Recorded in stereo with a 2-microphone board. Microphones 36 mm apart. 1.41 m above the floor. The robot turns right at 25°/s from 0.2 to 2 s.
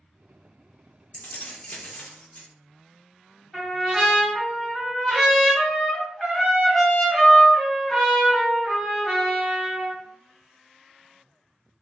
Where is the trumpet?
5° left (ahead or behind), 1.0 m.